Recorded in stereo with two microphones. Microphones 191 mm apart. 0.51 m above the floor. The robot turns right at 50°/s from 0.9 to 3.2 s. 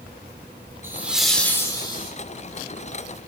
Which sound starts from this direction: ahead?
Laughter, at 0.8 s.